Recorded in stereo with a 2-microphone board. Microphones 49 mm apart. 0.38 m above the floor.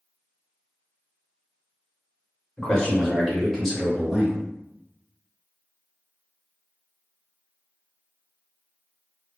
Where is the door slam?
I don't hear a door slam.